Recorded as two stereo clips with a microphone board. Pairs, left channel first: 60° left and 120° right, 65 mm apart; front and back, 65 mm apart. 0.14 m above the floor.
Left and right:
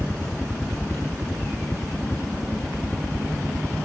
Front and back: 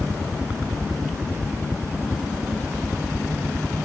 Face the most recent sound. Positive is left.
turn(degrees=135)